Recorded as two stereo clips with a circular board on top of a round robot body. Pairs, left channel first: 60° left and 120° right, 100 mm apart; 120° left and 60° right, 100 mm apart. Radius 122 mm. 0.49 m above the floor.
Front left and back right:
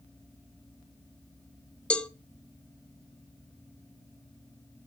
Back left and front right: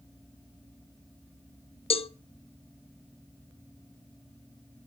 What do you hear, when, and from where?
1.9 s a cowbell: 140° left, 1.2 m